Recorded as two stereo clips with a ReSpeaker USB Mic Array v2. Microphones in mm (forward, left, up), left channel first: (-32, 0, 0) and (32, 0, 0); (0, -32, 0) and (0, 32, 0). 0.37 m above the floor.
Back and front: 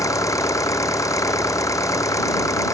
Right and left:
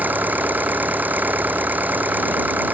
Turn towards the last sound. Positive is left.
turn(degrees=150)